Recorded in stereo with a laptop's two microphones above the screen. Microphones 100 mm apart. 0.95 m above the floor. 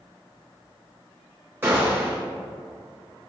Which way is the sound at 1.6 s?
20° right (ahead or behind).